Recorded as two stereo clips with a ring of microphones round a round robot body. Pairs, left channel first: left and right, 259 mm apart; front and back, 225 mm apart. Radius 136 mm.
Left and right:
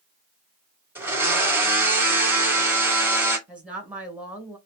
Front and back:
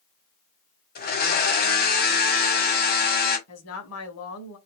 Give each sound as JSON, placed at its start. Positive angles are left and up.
{"t": 0.9, "sound": "a blender", "azimuth_deg": -10, "distance_m": 1.5}
{"t": 3.5, "sound": "a woman speaking", "azimuth_deg": -5, "distance_m": 1.8}